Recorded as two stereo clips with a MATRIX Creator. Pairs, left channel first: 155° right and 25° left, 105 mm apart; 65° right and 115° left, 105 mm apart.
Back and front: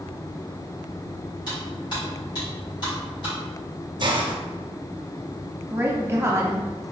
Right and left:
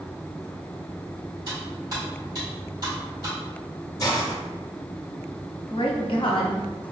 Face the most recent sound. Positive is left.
turn(degrees=-40)